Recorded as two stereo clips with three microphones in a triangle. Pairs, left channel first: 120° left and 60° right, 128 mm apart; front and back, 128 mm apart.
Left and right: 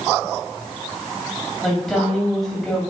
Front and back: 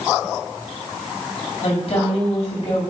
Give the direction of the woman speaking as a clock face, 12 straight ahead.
11 o'clock.